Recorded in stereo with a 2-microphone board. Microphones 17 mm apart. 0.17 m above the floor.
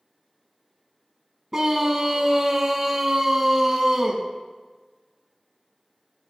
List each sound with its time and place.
1.5 s a scream: 30° right (ahead or behind), 1.2 m